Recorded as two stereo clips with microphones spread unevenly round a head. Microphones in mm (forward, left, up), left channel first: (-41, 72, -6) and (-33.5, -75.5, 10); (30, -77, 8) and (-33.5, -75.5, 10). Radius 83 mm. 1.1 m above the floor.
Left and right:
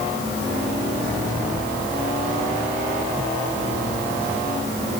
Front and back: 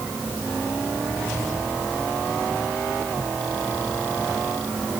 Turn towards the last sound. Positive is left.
No sound to turn to.